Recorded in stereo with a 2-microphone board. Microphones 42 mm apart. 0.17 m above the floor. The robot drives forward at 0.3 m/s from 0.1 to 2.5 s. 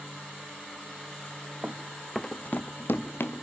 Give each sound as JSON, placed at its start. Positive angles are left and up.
{"t": 1.6, "sound": "running footsteps", "side_deg": -40, "distance_m": 1.1}